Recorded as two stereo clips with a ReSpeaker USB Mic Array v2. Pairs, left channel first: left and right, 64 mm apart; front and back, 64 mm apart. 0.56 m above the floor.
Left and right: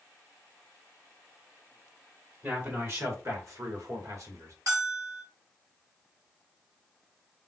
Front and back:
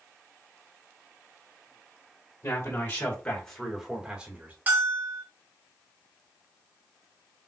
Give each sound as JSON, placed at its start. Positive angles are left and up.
{"t": 2.4, "sound": "a man speaking", "azimuth_deg": -40, "distance_m": 2.5}
{"t": 4.7, "sound": "a bell", "azimuth_deg": -120, "distance_m": 2.5}